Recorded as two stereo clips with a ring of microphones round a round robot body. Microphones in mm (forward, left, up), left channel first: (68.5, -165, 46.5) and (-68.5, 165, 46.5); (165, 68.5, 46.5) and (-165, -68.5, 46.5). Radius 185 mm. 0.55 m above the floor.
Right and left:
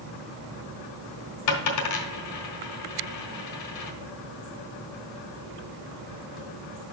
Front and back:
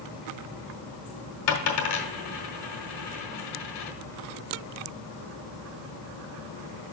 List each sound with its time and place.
1.5 s a dropped coin: 25° right, 1.4 m